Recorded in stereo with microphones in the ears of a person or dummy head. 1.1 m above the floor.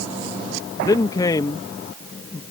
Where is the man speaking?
20° left (ahead or behind).